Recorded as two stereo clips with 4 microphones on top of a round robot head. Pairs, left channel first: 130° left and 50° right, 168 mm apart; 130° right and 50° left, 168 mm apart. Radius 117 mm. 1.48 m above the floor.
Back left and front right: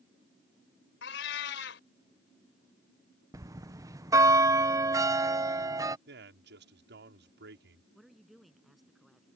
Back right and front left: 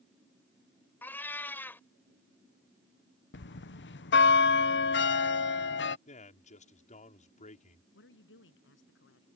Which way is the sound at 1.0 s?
150° left.